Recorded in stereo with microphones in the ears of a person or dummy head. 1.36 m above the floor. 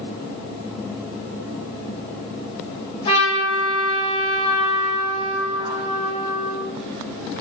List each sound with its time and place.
3.0 s a trumpet: 35° left (ahead or behind), 3.5 m